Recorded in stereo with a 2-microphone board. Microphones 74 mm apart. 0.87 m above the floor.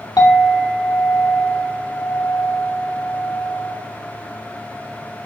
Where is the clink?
75° left (ahead or behind), 0.9 m.